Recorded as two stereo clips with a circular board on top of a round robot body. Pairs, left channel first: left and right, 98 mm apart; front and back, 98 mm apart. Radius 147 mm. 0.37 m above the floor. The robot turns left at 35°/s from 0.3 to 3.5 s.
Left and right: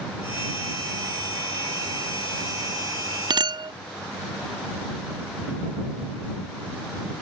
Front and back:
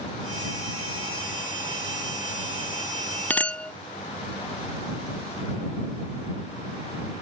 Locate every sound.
3.3 s a clink: 70° right; by 3.7 s 75° right